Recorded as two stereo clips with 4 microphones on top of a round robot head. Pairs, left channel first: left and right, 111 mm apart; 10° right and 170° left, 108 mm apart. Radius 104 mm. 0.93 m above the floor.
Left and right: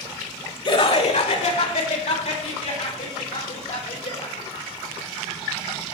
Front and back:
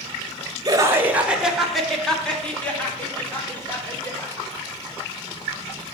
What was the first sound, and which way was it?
Laughter, 120° left.